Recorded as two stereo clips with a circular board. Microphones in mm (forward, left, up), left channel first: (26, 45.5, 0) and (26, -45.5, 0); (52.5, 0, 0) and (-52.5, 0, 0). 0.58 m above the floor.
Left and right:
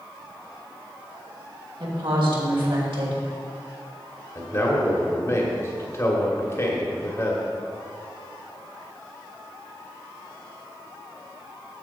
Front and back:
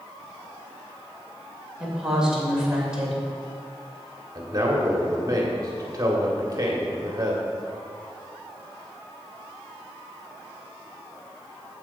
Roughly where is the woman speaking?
Right.